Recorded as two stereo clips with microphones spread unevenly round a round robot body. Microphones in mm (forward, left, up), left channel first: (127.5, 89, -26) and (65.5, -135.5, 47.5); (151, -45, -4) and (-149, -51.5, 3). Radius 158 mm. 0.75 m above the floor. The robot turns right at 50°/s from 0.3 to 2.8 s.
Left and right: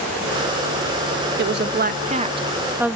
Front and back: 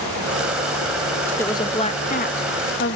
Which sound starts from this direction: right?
A woman speaking, at 1.4 s.